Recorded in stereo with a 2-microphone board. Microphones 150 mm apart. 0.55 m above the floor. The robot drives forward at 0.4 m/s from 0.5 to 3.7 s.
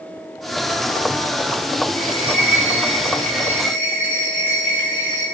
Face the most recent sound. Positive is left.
turn(degrees=10)  # may be behind; listen again after turning